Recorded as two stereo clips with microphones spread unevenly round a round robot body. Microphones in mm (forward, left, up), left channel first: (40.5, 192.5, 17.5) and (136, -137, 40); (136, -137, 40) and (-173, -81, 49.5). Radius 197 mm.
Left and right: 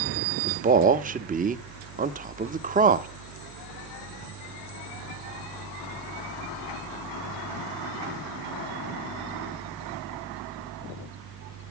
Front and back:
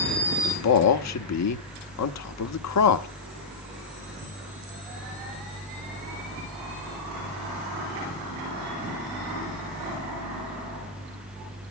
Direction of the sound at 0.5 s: 5° right.